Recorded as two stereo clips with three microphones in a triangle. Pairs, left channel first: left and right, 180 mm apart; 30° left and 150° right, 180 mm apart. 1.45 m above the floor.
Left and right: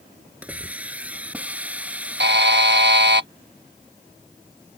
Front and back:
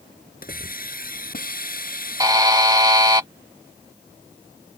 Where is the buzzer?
80° right.